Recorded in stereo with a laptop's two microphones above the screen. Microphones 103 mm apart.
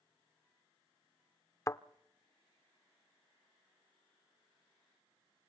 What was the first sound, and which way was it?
A thud, 30° left (ahead or behind).